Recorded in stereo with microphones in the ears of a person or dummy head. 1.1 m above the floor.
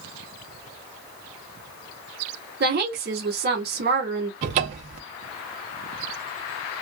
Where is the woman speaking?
50° right (ahead or behind), 1.2 m.